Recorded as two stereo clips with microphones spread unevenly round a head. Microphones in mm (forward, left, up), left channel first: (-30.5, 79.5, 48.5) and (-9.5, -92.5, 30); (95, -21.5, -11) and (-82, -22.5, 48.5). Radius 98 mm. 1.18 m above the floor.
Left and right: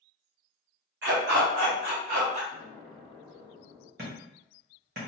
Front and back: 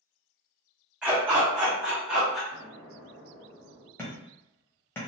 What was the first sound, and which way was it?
A dog barking, 105° right.